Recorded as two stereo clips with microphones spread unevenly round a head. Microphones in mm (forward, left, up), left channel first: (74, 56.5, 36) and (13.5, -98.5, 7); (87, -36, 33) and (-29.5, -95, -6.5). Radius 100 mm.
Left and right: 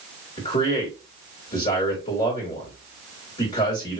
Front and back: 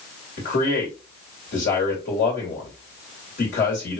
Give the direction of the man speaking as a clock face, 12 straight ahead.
11 o'clock.